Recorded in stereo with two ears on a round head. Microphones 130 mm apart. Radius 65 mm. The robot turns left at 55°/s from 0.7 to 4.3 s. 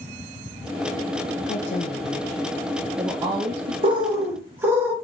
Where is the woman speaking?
60° left (ahead or behind), 0.5 m; by 3.7 s 45° right (ahead or behind), 0.5 m.